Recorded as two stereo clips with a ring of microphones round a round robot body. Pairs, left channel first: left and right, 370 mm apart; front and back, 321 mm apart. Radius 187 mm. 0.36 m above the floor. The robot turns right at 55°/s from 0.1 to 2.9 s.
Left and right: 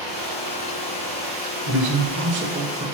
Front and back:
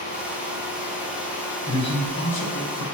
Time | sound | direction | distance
1.7 | a man speaking | 80° right | 1.1 m